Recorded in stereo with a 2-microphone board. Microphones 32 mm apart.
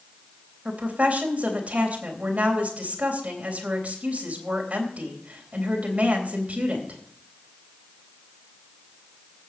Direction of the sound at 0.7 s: 45° right (ahead or behind).